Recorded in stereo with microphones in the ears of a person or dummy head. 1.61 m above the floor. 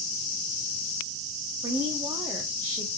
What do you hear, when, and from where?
1.6 s a woman speaking: 15° right (ahead or behind), 0.7 m